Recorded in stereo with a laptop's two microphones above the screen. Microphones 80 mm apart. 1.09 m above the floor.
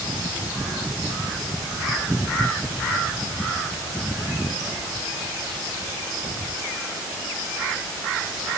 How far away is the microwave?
No microwave in this recording.